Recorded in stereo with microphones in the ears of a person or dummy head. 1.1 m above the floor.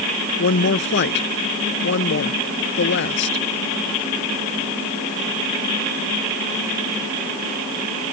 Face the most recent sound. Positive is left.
turn(degrees=55)  # may be behind; listen again after turning